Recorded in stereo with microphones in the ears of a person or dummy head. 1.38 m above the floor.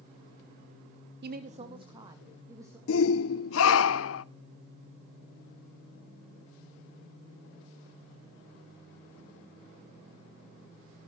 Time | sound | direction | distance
1.2 | a woman speaking | 55° right (ahead or behind) | 0.6 m
2.9 | a shout | 75° left (ahead or behind) | 0.7 m